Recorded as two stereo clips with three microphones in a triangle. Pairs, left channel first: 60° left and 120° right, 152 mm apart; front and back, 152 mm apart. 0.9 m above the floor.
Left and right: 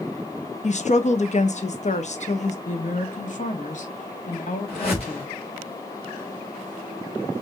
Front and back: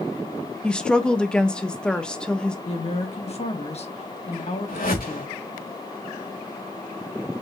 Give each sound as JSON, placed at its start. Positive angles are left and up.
{"t": 0.6, "sound": "a woman speaking", "azimuth_deg": 85, "distance_m": 0.7}
{"t": 2.6, "sound": "a woman speaking", "azimuth_deg": 40, "distance_m": 1.0}
{"t": 4.7, "sound": "a whoosh", "azimuth_deg": 10, "distance_m": 3.0}